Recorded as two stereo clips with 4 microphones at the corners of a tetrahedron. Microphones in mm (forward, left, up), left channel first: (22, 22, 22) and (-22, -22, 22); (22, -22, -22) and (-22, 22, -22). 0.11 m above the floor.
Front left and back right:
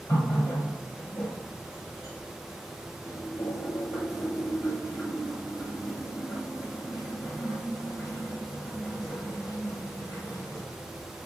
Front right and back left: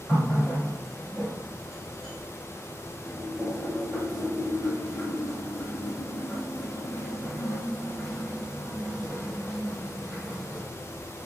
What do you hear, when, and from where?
0.1 s a running tap: 40° left, 2 m